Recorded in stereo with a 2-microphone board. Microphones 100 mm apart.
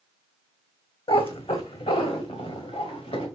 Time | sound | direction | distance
1.1 | a cat meowing | 65° left (ahead or behind) | 1.4 m